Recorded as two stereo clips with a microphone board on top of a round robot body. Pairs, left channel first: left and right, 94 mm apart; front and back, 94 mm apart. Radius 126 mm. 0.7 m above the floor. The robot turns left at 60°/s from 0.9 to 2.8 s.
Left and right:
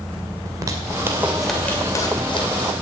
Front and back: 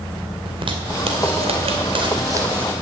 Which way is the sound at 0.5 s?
145° right.